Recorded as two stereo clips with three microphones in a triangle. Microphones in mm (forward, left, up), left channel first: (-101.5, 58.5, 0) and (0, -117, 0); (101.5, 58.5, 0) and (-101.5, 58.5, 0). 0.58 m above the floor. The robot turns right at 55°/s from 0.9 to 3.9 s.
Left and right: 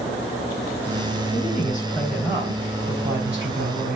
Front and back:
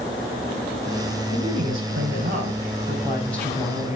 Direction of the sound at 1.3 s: 165° left.